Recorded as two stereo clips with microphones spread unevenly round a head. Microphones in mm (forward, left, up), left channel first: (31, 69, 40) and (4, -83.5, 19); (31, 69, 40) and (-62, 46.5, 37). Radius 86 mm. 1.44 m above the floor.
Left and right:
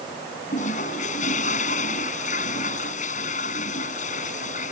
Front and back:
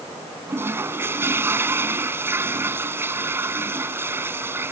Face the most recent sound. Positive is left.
turn(degrees=130)